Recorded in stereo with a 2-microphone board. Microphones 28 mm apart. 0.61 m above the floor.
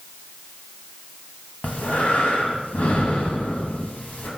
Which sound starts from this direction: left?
Breathing, at 1.6 s.